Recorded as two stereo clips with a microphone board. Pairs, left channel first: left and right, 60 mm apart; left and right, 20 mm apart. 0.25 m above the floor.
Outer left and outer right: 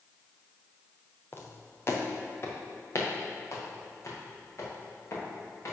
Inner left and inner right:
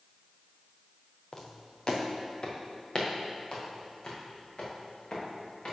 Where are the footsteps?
35° left (ahead or behind), 1.3 m; by 5.7 s 50° left (ahead or behind), 4 m.